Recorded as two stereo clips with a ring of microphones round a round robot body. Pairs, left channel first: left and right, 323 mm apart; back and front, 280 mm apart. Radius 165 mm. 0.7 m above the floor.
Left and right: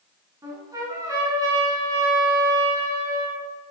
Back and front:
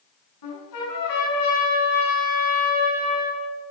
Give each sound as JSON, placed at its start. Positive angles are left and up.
{"t": 0.4, "sound": "a trumpet", "azimuth_deg": -170, "distance_m": 6.5}